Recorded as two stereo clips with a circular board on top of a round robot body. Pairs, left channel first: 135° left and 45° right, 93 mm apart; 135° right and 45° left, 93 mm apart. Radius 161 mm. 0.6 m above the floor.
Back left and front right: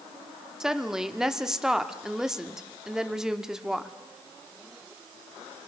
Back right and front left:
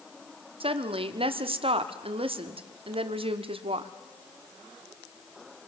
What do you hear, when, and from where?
0.6 s a woman speaking: 40° left, 1.5 m